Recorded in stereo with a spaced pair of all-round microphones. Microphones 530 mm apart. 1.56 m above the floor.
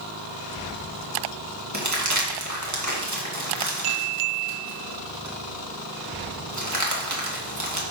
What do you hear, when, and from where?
1.7 s crumpling: 30° right (ahead or behind), 2 m